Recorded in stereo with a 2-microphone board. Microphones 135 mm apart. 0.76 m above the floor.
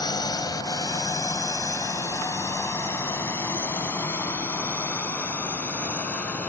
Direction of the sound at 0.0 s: 30° left (ahead or behind).